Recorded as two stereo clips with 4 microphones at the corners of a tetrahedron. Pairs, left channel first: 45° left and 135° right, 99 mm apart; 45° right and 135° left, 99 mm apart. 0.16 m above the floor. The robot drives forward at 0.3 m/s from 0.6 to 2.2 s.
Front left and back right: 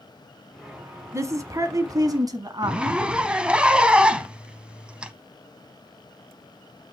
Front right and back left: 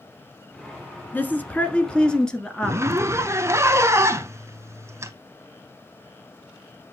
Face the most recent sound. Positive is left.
turn(degrees=155)